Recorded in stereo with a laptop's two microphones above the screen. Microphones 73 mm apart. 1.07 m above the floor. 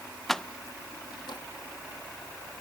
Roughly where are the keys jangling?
Centre.